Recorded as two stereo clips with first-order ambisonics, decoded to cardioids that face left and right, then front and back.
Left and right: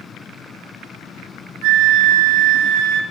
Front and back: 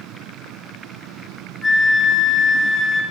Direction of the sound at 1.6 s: 85° right.